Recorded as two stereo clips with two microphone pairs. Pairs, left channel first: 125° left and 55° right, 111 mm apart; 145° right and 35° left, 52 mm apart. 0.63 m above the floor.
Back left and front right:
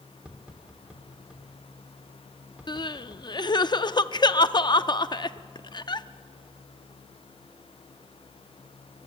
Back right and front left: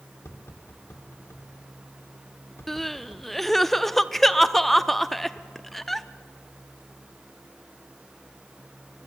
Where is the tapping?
135° right, 1.9 m.